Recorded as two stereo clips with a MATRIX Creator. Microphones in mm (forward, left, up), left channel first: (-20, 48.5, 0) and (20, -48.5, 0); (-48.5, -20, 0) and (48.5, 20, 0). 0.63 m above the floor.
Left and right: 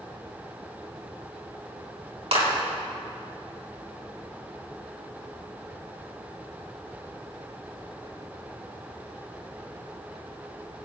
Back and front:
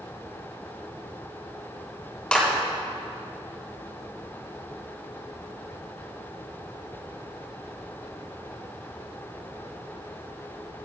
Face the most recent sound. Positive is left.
turn(degrees=-80)